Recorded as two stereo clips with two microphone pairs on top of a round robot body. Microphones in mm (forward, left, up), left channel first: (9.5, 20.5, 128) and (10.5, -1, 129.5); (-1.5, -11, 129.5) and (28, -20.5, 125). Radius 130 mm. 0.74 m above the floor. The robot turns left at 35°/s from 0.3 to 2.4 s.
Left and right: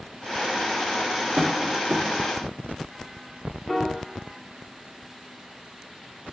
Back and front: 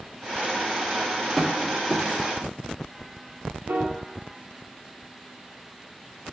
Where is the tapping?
105° right, 1.6 m; by 2.1 s 125° right, 1.6 m.